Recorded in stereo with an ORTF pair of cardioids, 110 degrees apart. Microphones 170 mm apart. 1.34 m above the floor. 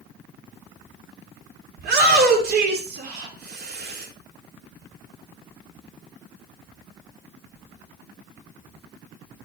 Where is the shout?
70° right, 4.5 m.